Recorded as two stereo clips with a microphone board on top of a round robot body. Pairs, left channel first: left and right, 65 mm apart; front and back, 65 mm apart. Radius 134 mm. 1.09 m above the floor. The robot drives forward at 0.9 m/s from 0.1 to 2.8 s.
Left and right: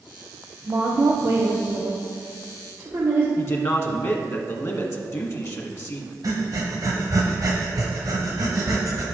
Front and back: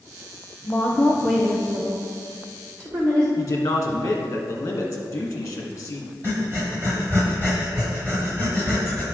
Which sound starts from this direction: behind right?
Breathing, at 6.2 s.